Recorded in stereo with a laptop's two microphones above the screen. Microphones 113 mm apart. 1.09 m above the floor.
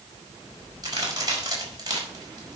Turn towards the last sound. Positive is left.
turn(degrees=-35)  # may be behind; listen again after turning